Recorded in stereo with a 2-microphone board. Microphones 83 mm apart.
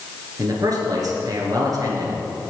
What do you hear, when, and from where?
0.4 s a man speaking: 50° right (ahead or behind), 3 m